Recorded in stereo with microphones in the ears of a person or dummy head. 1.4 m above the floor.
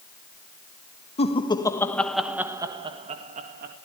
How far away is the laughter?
About 1.8 m.